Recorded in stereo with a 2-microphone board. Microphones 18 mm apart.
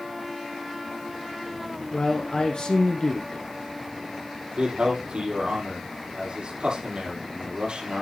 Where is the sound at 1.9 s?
50° left (ahead or behind), 1.8 m.